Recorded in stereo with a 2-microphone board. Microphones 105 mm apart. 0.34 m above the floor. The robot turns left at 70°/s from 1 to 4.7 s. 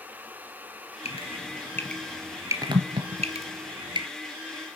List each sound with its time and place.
1.1 s dripping: 70° left (ahead or behind), 2.5 m; by 4.1 s 40° right (ahead or behind), 2.5 m